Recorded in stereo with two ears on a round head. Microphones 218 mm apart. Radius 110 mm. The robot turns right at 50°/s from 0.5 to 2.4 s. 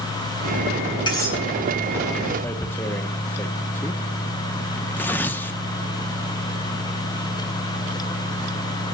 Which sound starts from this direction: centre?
Tearing paper, at 2.4 s.